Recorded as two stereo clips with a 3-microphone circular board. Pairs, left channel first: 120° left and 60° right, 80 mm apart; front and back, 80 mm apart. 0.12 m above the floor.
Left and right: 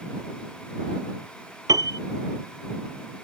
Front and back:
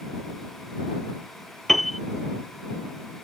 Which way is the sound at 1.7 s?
90° right.